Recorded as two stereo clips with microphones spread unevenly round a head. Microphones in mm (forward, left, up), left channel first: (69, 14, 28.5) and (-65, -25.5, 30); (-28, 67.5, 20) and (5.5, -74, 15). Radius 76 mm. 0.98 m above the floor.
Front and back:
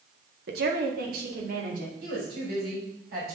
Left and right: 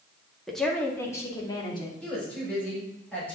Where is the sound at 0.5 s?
165° right, 1.7 m; by 1.9 s 160° left, 2.5 m.